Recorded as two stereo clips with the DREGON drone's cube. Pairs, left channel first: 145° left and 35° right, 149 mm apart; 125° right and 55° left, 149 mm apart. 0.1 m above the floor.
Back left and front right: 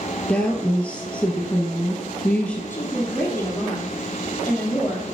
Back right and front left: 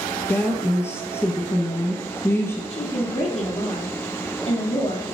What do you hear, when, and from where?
0.3 s a woman speaking: 150° right, 1.2 m
2.7 s a woman speaking: 145° right, 1.9 m